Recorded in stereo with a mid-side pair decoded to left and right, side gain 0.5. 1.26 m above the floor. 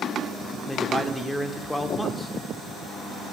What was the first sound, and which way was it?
A man speaking, 5° left.